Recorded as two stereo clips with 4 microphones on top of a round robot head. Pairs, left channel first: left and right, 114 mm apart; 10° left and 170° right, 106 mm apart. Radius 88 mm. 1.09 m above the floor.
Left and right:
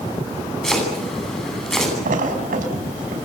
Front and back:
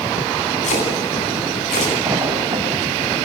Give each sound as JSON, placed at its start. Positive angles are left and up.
{"t": 0.6, "sound": "chopping", "azimuth_deg": 5, "distance_m": 10.0}
{"t": 2.0, "sound": "a splash", "azimuth_deg": -95, "distance_m": 5.0}